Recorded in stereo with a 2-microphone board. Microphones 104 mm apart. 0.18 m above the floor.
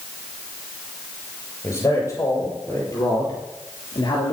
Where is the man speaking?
25° left (ahead or behind), 5.5 m; by 4.3 s 45° left (ahead or behind), 3.5 m.